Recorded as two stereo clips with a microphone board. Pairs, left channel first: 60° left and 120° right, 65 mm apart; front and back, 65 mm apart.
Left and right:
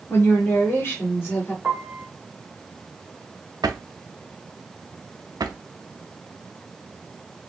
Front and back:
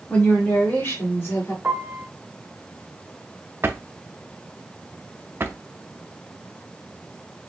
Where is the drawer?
125° right, 0.5 m.